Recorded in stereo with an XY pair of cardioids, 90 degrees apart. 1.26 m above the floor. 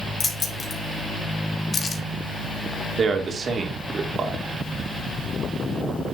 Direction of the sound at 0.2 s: 50° left.